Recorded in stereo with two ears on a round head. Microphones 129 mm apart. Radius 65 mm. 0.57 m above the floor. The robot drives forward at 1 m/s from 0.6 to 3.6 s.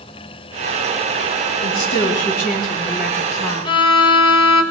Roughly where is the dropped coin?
I don't hear a dropped coin.